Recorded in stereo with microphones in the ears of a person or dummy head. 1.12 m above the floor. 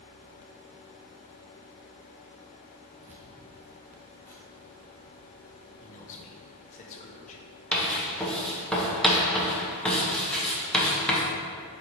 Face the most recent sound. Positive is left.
turn(degrees=5)  # may be behind; listen again after turning